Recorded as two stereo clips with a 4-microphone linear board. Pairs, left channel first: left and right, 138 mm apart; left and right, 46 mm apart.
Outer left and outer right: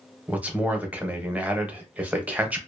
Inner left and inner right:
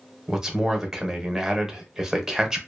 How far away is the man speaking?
About 0.7 m.